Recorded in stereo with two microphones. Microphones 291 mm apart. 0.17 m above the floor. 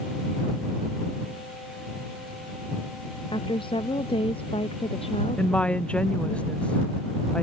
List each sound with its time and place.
3.3 s a woman speaking: 15° left (ahead or behind); by 6.4 s 20° left (ahead or behind)
5.4 s a woman speaking: 5° left (ahead or behind)